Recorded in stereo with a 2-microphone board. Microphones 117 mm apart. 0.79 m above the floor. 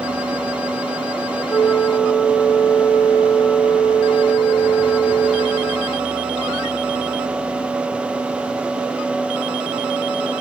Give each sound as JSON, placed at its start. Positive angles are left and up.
{"t": 1.5, "sound": "a flute", "side_deg": 10, "distance_m": 0.9}